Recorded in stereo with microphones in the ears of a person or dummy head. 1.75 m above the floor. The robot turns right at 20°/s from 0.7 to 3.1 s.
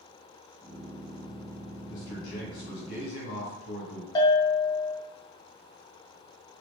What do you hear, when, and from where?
1.9 s a man speaking: 50° left (ahead or behind), 1.8 m; by 4.0 s 70° left (ahead or behind), 1.8 m
4.2 s a bell: 20° left (ahead or behind), 0.6 m